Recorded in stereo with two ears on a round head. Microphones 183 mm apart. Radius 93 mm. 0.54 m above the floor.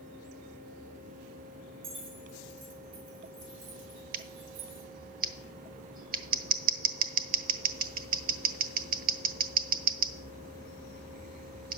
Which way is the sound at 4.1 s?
45° right (ahead or behind).